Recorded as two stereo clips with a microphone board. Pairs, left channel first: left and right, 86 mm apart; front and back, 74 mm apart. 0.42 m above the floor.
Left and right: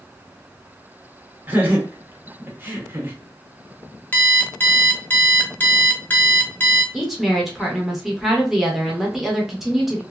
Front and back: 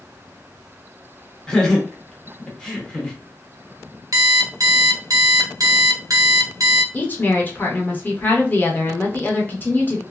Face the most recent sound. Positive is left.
turn(degrees=-5)